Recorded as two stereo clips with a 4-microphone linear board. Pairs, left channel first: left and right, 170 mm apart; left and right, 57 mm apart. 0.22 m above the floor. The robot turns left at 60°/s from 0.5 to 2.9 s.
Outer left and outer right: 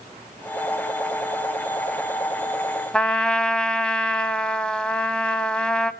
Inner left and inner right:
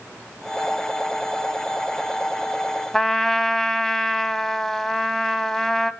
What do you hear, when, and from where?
2.9 s a trumpet: 5° left (ahead or behind), 0.7 m